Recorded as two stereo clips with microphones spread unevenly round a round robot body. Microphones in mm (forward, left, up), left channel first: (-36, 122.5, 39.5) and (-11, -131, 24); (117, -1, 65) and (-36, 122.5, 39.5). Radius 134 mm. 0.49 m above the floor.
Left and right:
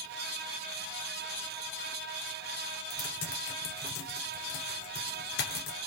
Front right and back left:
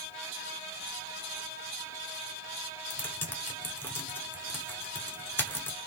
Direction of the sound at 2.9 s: 40° left.